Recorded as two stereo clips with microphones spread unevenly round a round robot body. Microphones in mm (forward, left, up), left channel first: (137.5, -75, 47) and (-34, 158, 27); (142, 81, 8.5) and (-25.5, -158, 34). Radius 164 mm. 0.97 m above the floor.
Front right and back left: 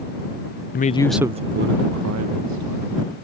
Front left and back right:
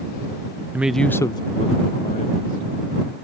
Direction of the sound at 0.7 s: 35° right.